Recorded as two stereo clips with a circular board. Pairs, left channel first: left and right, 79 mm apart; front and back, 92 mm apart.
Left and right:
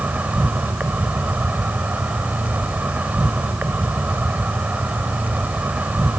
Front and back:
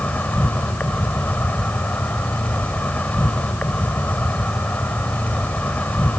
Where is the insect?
50° right, 1.2 m.